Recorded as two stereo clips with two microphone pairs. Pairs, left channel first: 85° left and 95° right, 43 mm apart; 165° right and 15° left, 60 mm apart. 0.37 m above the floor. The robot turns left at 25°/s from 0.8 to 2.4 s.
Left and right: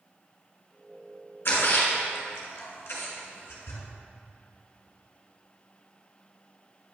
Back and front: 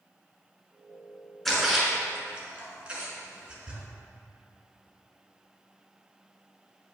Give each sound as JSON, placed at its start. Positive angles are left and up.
{"t": 1.4, "sound": "a splash", "azimuth_deg": 105, "distance_m": 2.0}